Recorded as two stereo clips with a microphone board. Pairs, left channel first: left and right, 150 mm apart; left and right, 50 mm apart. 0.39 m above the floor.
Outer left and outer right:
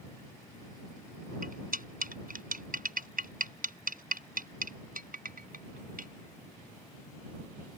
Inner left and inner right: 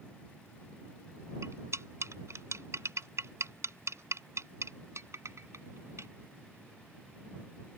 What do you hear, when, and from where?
1.4 s cutlery clinking: 75° right (ahead or behind)